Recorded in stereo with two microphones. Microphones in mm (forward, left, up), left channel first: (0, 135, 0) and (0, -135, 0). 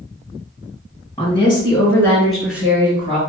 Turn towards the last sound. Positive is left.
turn(degrees=-20)  # may be behind; listen again after turning